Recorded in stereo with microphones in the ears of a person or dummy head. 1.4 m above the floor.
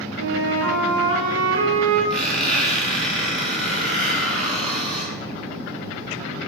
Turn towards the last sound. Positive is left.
turn(degrees=0)  # may be behind; listen again after turning